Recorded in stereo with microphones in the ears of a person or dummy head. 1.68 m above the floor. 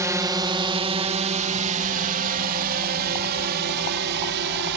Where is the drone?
15° right (ahead or behind); by 4.8 s 65° right (ahead or behind).